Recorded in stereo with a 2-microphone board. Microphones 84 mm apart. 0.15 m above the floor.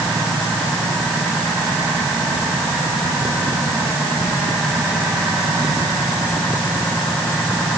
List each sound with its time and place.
Only background noise.